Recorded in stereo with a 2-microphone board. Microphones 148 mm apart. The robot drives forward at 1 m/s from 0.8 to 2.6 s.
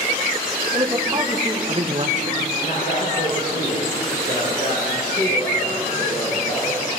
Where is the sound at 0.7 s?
25° right (ahead or behind), 2.5 m; by 2.4 s 60° right (ahead or behind), 1.1 m.